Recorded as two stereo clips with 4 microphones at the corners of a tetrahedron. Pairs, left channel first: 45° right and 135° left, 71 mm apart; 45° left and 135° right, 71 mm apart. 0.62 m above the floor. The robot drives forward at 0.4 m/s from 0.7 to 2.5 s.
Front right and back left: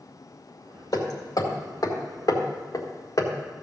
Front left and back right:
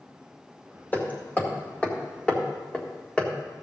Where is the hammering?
20° right, 2 m; by 3.3 s 30° right, 1.6 m.